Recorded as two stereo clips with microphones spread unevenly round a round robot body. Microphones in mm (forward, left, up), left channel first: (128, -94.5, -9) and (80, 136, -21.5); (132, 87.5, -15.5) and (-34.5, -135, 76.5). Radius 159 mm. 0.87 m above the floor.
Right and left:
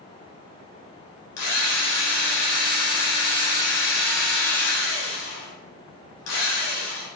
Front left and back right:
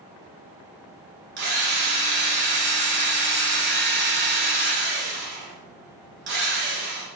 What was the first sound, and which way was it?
A drill, 75° right.